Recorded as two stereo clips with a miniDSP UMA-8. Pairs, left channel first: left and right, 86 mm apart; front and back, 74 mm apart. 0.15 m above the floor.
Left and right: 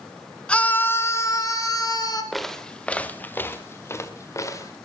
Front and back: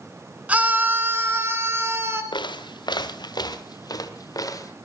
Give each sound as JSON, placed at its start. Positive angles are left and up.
{"t": 0.5, "sound": "a scream", "azimuth_deg": 145, "distance_m": 1.2}
{"t": 2.3, "sound": "footsteps", "azimuth_deg": 0, "distance_m": 1.5}